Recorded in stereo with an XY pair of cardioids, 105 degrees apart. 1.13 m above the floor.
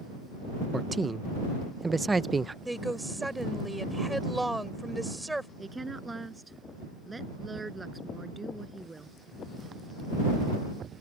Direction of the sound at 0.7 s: 20° right.